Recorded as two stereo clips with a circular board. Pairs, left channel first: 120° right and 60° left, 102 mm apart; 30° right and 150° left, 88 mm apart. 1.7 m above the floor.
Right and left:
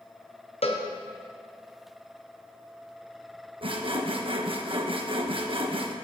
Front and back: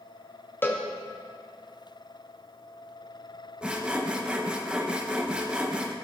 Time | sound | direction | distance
0.6 | a cowbell | 100° right | 1.4 m
3.6 | sawing | 75° left | 1.2 m